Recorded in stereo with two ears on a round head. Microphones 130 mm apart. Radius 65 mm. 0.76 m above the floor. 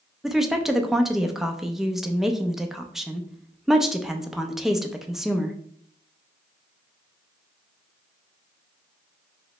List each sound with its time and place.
0.2 s a woman speaking: 5° right (ahead or behind), 0.5 m